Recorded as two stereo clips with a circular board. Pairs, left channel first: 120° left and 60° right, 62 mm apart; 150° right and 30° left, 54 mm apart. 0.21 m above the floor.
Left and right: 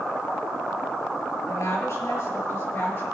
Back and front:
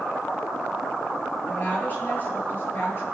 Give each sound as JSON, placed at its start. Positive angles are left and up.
{"t": 1.5, "sound": "a woman speaking", "azimuth_deg": 155, "distance_m": 3.5}